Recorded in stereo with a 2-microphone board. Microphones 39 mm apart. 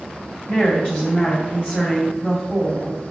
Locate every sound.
0.5 s a woman speaking: 35° left (ahead or behind), 1.9 m